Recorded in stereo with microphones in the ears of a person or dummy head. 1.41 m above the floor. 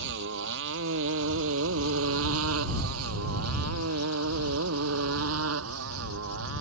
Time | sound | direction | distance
0.0 | a motorcycle | 65° right (ahead or behind) | ?